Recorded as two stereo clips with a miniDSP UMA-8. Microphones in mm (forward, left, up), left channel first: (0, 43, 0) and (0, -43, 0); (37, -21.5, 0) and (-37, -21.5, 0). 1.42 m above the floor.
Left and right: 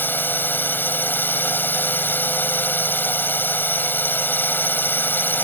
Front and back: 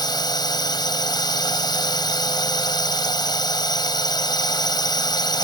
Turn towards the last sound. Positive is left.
turn(degrees=25)